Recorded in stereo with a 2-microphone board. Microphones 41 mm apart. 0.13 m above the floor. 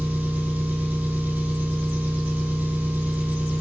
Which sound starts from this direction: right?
An engine running, at 0.0 s.